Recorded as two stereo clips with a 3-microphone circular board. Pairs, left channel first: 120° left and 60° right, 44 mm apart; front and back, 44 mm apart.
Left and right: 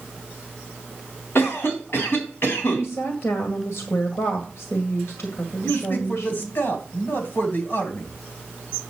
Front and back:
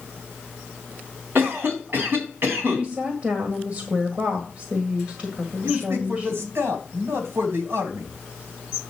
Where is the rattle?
No rattle in this recording.